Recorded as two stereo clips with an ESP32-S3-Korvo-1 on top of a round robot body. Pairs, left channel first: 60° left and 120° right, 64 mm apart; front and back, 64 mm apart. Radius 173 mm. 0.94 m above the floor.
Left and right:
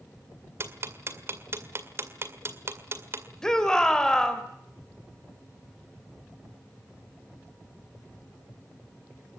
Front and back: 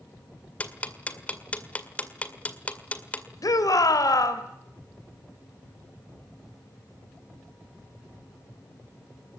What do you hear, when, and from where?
0.6 s ticking: 65° right, 2 m
3.4 s a shout: 20° right, 4 m